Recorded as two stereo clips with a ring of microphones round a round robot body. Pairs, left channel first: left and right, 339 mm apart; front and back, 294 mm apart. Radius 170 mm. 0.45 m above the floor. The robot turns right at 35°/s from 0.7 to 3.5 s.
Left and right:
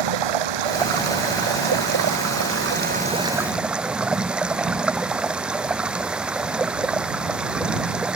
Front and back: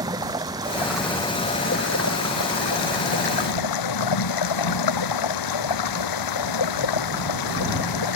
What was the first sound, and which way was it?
Running water, 100° right.